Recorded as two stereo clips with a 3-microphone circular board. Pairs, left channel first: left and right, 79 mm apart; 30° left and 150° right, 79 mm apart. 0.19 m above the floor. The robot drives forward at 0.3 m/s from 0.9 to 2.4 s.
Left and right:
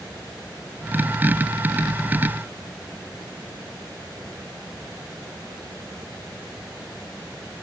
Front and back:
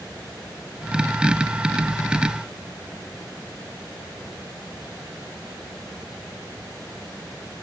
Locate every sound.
Only background noise.